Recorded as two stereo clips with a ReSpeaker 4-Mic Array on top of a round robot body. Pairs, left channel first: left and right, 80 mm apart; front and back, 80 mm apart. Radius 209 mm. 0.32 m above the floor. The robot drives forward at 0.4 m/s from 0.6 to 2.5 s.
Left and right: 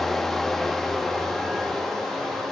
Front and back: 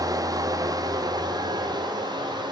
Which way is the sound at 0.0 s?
175° left.